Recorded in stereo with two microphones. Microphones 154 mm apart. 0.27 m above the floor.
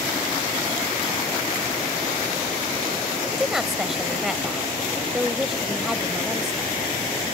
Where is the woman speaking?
Centre (ahead or behind).